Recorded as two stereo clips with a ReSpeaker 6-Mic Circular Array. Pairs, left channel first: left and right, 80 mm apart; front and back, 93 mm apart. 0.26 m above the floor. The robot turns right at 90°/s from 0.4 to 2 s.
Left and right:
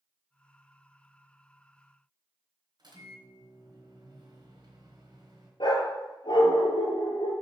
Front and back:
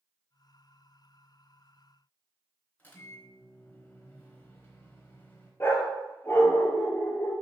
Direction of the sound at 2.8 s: 70° right.